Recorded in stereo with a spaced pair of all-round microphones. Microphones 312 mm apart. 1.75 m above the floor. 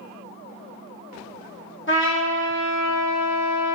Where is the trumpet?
40° left (ahead or behind), 0.9 m.